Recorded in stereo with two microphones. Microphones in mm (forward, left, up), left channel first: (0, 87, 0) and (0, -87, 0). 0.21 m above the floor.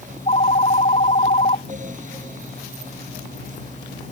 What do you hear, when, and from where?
0.1 s a phone ringing: 40° left (ahead or behind)